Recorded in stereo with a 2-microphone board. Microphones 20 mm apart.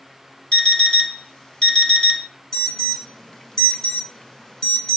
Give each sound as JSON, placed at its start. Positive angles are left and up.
{"t": 0.5, "sound": "an alarm clock", "side_deg": 45, "distance_m": 1.0}
{"t": 2.5, "sound": "an alarm", "side_deg": 30, "distance_m": 0.7}